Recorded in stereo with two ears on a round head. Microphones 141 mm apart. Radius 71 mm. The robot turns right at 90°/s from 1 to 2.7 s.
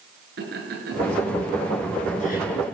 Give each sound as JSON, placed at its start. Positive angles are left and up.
{"t": 0.4, "sound": "laughter", "side_deg": -65, "distance_m": 9.5}